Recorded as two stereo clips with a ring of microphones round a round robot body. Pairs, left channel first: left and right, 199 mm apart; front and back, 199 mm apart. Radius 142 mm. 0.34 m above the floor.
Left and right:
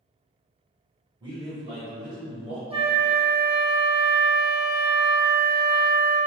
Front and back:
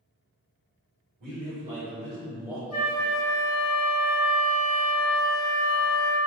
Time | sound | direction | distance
1.2 | a man speaking | 160° right | 1.9 m
2.7 | a flute | 30° right | 1.5 m